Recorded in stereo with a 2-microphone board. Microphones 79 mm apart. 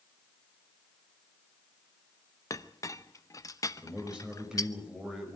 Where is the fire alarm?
I don't hear a fire alarm.